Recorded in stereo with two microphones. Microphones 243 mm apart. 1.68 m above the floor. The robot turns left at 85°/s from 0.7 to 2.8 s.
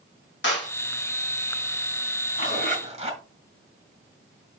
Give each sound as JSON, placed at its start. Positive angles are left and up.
{"t": 0.4, "sound": "a clap", "side_deg": 50, "distance_m": 2.5}
{"t": 2.4, "sound": "a zipper", "azimuth_deg": -115, "distance_m": 3.5}